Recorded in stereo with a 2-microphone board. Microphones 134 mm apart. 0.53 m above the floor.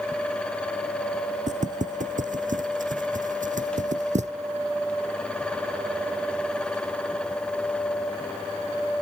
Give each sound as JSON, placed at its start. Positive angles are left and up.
{"t": 1.5, "sound": "footsteps", "side_deg": -65}